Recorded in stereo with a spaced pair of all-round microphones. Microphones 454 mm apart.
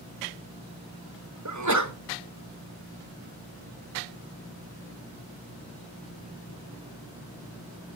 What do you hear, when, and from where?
1.4 s a sneeze: 40° right (ahead or behind), 1.2 m